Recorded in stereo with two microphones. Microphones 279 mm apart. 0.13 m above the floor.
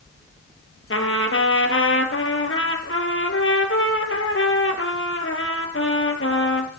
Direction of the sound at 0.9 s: 50° left (ahead or behind).